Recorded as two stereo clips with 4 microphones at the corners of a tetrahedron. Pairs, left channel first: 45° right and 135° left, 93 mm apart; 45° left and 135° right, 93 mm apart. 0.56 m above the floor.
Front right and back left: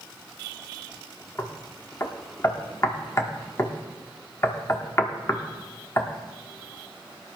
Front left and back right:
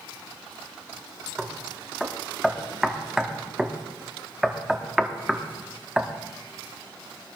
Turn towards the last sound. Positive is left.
turn(degrees=-55)